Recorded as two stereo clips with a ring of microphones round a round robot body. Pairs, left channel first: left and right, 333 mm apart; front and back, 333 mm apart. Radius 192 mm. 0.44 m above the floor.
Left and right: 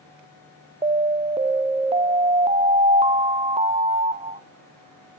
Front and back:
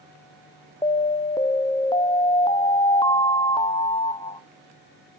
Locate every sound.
0.8 s an alarm: 50° right, 0.6 m